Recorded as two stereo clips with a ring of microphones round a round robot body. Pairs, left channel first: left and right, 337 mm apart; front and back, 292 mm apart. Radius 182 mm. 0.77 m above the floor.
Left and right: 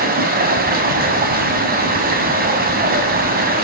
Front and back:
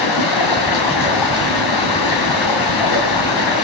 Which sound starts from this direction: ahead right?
Running water, at 0.0 s.